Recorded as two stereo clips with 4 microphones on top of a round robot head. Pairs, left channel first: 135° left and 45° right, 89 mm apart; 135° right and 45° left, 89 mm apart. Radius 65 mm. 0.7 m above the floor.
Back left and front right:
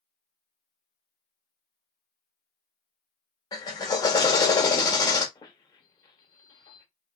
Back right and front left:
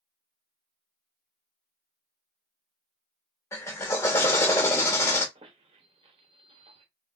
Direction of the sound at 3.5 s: 170° left.